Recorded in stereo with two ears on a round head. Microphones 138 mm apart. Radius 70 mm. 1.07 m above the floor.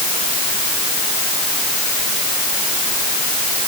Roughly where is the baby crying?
No baby crying in this recording.